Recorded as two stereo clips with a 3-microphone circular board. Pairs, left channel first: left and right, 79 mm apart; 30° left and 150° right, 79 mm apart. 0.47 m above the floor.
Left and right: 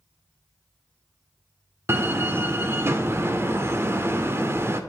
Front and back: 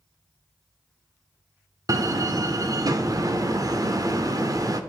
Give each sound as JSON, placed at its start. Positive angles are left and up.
{"t": 1.9, "sound": "a door slam", "azimuth_deg": -135, "distance_m": 0.6}